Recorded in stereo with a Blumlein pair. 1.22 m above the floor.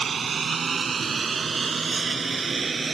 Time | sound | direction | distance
0.0 | a lawn mower | 20° right | ?